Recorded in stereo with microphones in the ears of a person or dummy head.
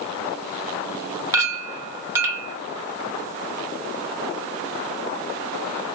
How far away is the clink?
About 0.8 m.